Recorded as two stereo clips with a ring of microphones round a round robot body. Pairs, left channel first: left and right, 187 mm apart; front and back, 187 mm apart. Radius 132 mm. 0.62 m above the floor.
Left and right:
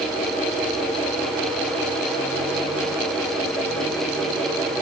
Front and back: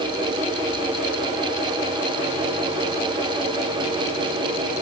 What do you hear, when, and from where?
Only background noise.